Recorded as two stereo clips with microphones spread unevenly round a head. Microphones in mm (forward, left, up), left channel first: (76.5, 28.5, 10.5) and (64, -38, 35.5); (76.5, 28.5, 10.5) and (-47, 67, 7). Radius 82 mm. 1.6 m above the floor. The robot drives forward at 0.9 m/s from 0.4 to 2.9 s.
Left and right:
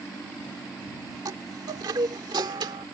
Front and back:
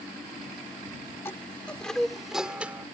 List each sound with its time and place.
1.2 s a chime: 95° right; by 2.9 s 115° right